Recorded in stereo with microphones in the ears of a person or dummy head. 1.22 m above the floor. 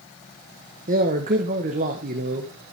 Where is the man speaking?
40° right (ahead or behind), 1.2 m.